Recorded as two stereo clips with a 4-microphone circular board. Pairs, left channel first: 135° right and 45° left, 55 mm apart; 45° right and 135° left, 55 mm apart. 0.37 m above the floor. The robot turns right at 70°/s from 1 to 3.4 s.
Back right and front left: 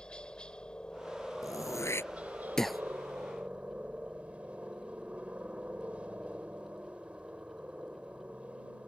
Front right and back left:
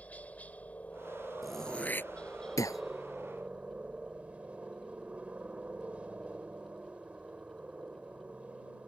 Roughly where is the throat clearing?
Behind right.